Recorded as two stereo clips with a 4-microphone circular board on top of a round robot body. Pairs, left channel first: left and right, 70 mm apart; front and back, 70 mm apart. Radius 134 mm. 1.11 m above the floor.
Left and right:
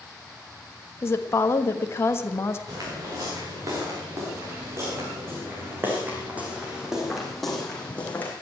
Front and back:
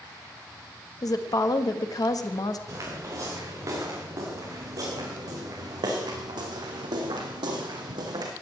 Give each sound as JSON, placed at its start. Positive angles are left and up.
{"t": 1.0, "sound": "a woman speaking", "azimuth_deg": 35, "distance_m": 1.5}
{"t": 2.7, "sound": "footsteps", "azimuth_deg": -130, "distance_m": 5.5}